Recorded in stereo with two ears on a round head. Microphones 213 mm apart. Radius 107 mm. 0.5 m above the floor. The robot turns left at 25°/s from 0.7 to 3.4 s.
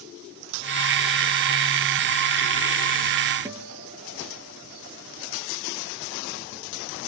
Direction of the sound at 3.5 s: 10° right (ahead or behind).